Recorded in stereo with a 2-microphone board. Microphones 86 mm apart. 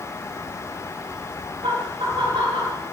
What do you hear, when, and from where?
1.6 s laughter: 80° right, 6 m